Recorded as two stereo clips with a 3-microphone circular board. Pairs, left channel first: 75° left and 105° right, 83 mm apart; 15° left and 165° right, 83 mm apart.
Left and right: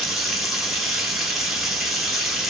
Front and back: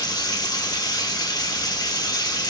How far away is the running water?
About 1.0 m.